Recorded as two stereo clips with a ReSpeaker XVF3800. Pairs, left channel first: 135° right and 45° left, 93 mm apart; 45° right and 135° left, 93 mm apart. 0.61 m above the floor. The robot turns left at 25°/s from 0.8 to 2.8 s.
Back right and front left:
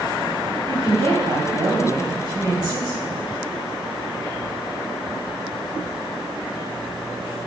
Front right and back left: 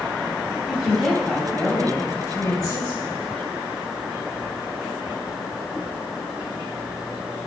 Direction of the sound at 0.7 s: 45° left.